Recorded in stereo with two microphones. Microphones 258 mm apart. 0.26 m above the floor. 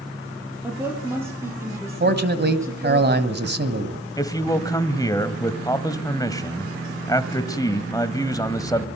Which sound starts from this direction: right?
A man speaking, at 2.0 s.